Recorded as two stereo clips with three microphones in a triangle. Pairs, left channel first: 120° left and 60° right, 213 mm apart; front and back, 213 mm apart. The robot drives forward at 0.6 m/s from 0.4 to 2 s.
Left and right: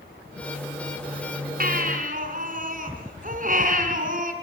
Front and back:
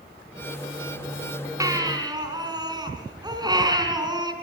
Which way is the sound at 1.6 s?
105° right.